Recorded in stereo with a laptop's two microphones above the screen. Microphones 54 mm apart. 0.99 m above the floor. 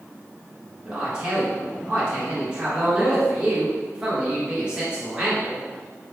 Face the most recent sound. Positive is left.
turn(degrees=-20)  # may be behind; listen again after turning